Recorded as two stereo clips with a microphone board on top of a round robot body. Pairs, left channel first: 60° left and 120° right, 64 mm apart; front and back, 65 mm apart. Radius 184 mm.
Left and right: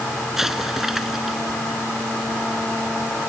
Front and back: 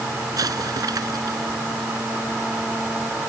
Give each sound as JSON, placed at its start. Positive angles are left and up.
{"t": 0.4, "sound": "an explosion", "azimuth_deg": 155}